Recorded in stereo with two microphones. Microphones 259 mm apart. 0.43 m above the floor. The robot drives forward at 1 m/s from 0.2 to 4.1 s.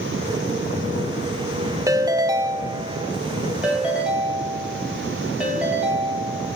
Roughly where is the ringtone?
Centre.